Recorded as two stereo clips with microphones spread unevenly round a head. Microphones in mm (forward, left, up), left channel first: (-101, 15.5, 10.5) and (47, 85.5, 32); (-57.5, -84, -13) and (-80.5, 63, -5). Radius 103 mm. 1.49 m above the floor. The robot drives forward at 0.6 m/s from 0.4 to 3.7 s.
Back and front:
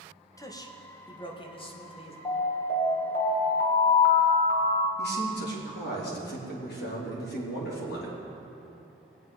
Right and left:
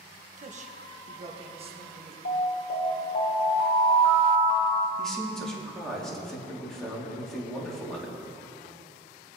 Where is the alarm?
80° right, 1.9 m; by 4.9 s 105° right, 1.9 m.